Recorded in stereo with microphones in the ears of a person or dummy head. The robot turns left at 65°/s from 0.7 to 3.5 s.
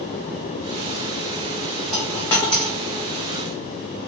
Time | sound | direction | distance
1.9 | a dropped coin | 5° left (ahead or behind) | 0.7 m